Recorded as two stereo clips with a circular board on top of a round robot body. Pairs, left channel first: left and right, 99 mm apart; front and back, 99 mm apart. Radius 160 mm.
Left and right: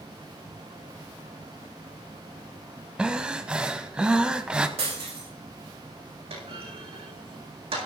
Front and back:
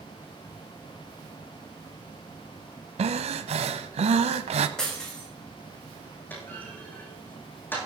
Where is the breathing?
170° right, 0.8 m.